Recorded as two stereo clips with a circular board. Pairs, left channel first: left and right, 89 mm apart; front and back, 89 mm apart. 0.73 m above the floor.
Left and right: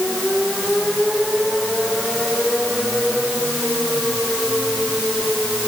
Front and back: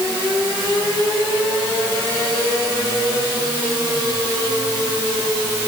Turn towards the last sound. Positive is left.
No sound to turn to.